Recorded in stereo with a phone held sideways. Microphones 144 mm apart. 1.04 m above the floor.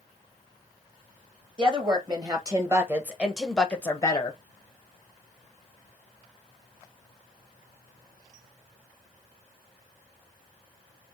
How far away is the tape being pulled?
No tape being pulled in this recording.